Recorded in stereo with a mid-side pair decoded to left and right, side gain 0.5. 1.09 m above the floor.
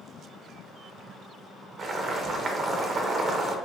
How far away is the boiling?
About 0.7 m.